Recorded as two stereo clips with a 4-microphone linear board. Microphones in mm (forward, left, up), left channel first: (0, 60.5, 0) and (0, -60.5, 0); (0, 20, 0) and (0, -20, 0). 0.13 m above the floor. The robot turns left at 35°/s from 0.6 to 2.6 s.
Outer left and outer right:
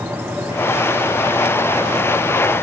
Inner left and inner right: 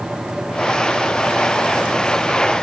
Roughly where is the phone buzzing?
I don't hear a phone buzzing.